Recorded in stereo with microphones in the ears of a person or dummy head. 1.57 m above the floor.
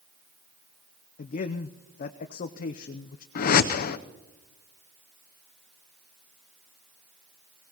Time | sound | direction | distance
1.2 | a man speaking | 45° left (ahead or behind) | 0.6 m
3.4 | a whoosh | 55° left (ahead or behind) | 0.7 m